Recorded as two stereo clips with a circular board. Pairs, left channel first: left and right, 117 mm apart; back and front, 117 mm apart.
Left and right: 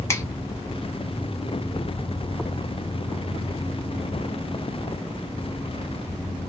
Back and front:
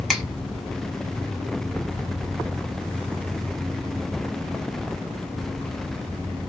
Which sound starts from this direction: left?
A finger snap, at 0.1 s.